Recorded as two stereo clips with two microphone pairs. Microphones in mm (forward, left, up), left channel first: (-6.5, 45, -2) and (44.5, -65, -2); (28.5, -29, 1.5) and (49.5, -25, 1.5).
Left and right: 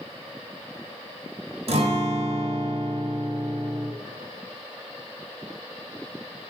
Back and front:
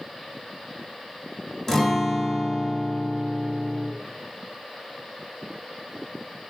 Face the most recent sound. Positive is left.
turn(degrees=-95)